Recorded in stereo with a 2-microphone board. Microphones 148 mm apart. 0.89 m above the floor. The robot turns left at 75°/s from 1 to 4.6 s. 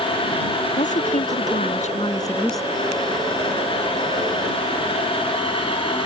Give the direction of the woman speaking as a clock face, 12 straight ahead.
8 o'clock.